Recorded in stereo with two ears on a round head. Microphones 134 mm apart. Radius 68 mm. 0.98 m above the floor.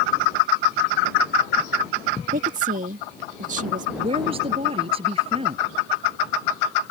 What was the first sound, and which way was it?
A woman speaking, 55° right (ahead or behind).